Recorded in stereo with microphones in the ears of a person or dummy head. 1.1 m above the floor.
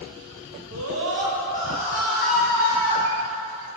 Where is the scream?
80° right, 1.3 m; by 3.0 s 15° left (ahead or behind), 3 m.